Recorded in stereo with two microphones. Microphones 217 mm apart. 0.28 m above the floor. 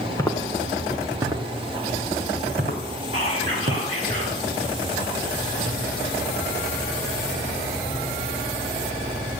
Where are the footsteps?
15° left (ahead or behind), 2.0 m; by 3.9 s 45° right (ahead or behind), 5 m.